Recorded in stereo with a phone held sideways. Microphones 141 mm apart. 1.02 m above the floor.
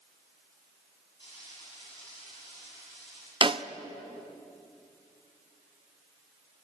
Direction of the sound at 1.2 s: 40° left (ahead or behind).